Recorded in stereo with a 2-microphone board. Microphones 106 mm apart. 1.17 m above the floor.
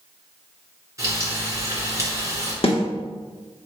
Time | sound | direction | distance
1.0 | frying | 30° right (ahead or behind) | 2 m
2.6 | a snare drum | 65° left (ahead or behind) | 1.2 m